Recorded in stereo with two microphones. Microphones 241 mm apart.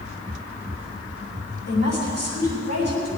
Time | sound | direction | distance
1.7 | a woman speaking | 80° left | 7 m